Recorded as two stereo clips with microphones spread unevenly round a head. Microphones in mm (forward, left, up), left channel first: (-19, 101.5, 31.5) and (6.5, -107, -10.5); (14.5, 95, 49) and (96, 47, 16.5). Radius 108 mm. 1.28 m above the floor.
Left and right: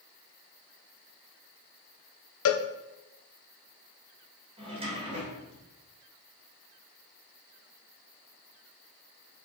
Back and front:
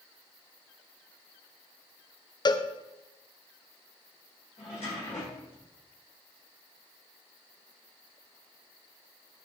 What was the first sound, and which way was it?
A cowbell, 95° left.